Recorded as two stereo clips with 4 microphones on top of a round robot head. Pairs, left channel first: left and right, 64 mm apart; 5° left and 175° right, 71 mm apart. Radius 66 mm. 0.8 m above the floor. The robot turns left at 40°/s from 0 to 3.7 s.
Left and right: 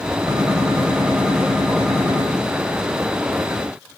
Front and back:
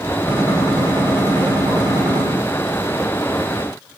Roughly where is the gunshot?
Behind right.